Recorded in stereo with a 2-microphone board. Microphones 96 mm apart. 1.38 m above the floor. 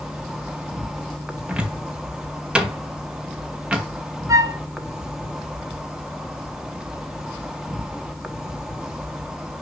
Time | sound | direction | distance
0.0 | an insect | 5° right (ahead or behind) | 0.8 m
1.5 | a cupboard door | 10° right (ahead or behind) | 1.0 m
4.3 | a flute | 35° right (ahead or behind) | 0.7 m